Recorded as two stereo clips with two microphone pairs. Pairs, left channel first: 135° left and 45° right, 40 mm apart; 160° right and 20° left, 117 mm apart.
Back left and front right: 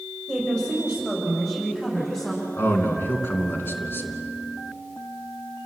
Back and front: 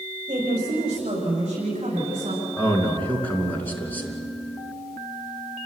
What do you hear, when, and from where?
0.3 s a woman speaking: 65° left, 7.5 m; by 2.4 s 55° left, 8.5 m
2.6 s a man speaking: 125° left, 2.5 m